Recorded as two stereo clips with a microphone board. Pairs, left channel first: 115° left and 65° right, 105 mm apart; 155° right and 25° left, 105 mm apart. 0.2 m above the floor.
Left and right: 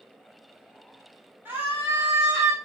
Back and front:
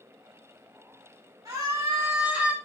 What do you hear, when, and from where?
1.4 s a scream: 10° right, 1.4 m; by 2.5 s 45° right, 1.3 m